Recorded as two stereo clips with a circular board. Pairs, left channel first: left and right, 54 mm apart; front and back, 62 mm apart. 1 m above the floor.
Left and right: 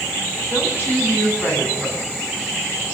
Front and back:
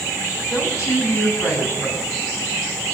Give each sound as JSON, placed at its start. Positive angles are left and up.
{"t": 0.5, "sound": "a woman speaking", "azimuth_deg": 35, "distance_m": 8.5}